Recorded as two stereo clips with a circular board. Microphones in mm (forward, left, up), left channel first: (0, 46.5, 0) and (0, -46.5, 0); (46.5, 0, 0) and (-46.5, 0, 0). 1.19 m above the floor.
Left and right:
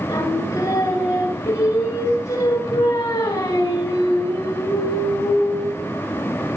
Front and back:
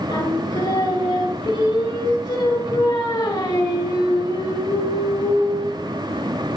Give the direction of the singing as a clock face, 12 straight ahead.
11 o'clock.